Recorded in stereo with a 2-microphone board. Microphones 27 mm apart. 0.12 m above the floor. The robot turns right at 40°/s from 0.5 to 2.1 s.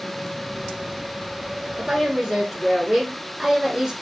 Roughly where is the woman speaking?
Right.